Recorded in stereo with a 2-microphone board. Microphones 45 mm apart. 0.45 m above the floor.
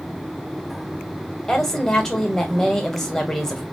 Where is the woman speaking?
10° left (ahead or behind), 1.4 m.